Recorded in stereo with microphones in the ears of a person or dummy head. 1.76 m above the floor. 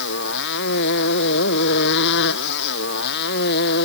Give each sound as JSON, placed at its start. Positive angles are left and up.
{"t": 0.0, "sound": "a motorcycle", "side_deg": 60}